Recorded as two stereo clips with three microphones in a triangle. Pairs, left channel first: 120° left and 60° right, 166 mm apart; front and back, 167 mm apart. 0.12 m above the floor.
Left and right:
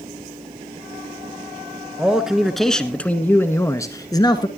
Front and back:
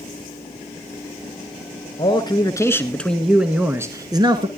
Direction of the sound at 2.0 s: 20° left.